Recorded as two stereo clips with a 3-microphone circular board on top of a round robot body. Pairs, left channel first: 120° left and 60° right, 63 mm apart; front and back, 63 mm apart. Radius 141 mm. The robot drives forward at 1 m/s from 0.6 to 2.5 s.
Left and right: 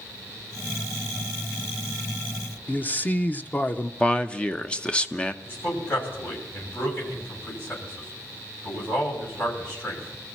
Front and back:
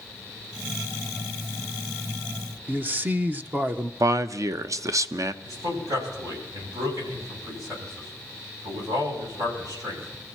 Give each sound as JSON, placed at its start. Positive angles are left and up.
{"t": 2.7, "sound": "a man speaking", "azimuth_deg": 155, "distance_m": 1.1}
{"t": 4.0, "sound": "a man speaking", "azimuth_deg": -170, "distance_m": 0.9}
{"t": 5.4, "sound": "a man speaking", "azimuth_deg": 170, "distance_m": 7.0}